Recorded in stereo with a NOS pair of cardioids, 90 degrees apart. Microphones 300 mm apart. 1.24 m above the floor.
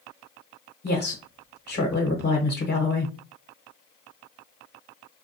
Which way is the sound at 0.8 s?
35° left.